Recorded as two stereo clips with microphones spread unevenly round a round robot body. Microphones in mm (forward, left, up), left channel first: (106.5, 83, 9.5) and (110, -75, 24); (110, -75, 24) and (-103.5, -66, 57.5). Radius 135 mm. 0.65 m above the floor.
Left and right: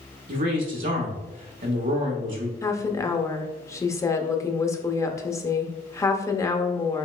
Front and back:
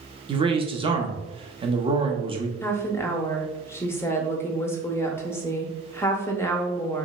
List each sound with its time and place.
0.3 s a man speaking: 115° right, 0.8 m
2.6 s a woman speaking: 50° left, 0.5 m